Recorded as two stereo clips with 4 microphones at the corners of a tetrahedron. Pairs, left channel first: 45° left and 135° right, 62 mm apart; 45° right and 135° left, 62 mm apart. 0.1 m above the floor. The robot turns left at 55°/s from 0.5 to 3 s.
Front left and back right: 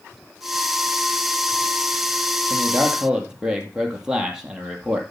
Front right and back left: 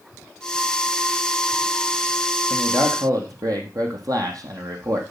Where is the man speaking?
175° left, 3 m; by 5.0 s 150° left, 3 m.